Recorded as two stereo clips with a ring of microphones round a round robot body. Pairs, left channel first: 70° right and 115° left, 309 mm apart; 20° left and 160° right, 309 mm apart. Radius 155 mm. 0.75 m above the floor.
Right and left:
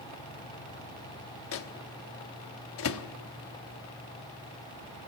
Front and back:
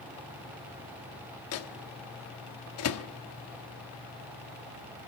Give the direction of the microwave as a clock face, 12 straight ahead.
1 o'clock.